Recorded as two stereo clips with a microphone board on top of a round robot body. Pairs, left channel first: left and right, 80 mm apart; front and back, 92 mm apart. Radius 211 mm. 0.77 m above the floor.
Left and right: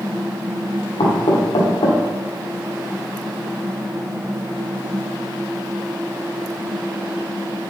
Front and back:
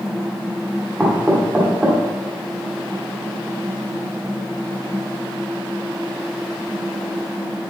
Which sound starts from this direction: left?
Knocking, at 1.0 s.